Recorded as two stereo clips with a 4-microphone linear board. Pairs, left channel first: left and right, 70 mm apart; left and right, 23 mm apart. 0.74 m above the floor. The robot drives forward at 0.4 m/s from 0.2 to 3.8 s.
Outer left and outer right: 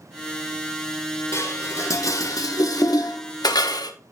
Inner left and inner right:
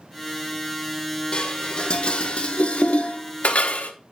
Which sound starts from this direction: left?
Dishes clattering, at 1.3 s.